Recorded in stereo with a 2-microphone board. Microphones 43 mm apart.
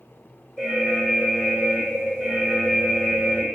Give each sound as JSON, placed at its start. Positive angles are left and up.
{"t": 0.6, "sound": "an alarm", "side_deg": 10, "distance_m": 2.5}